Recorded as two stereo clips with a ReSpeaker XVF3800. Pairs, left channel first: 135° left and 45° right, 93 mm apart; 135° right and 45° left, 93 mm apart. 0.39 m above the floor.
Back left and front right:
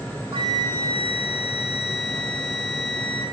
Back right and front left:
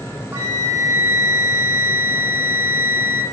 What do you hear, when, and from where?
0.3 s a flute: 20° right, 0.6 m